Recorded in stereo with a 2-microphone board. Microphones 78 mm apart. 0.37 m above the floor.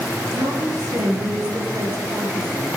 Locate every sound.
0.3 s a woman speaking: 60° right (ahead or behind), 6.5 m